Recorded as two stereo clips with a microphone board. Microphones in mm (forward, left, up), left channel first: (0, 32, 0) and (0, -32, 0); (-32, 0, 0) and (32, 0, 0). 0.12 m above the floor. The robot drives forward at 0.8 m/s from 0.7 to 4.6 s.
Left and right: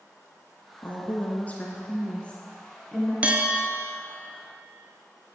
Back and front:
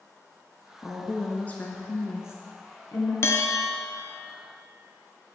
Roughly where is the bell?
Behind right.